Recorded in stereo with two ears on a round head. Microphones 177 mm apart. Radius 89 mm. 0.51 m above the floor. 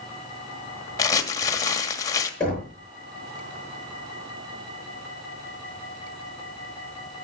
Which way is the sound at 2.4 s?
5° left (ahead or behind).